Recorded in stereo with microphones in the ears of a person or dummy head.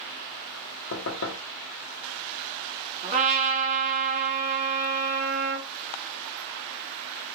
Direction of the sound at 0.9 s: 70° left (ahead or behind).